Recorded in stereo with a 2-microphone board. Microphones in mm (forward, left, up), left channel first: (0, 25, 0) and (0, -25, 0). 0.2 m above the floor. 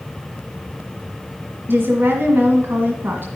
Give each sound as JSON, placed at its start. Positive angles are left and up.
{"t": 1.7, "sound": "a woman speaking", "side_deg": -40, "distance_m": 1.6}